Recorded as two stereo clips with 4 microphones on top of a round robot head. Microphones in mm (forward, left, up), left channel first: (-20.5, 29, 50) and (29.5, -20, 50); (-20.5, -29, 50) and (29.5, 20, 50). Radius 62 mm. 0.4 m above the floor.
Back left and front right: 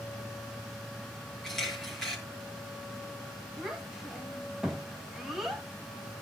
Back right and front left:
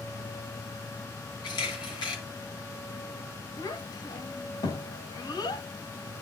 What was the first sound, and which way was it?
A camera shutter, 140° right.